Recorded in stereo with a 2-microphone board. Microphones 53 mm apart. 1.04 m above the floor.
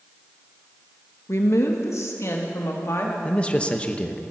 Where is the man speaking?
20° left (ahead or behind), 1.0 m.